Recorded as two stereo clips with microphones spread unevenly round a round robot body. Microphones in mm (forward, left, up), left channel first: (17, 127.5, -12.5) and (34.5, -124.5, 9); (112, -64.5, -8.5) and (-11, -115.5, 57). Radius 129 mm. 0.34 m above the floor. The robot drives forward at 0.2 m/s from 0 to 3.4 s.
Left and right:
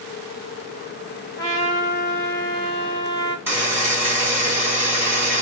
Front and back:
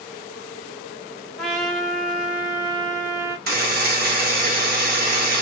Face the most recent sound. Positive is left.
turn(degrees=-170)